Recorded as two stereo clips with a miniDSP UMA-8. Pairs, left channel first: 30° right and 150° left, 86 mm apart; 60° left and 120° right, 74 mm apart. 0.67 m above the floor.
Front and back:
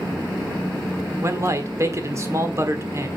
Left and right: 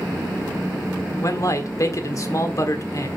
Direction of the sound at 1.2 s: 100° left.